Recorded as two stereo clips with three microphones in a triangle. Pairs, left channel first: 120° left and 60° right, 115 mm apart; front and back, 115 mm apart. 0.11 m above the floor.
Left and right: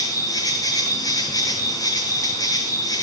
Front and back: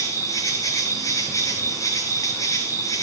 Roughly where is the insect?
Ahead left.